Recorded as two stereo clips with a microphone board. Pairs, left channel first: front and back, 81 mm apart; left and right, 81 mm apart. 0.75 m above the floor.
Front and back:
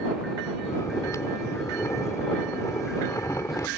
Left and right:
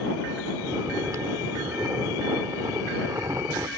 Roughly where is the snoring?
Ahead right.